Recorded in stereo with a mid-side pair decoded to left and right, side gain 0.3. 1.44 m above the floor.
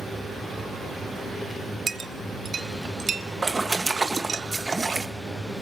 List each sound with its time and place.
1.9 s a clink: 60° right, 0.8 m
3.4 s a splash: 30° right, 1.6 m